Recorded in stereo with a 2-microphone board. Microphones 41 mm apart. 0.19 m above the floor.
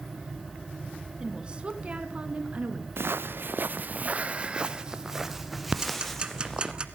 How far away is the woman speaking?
About 2 m.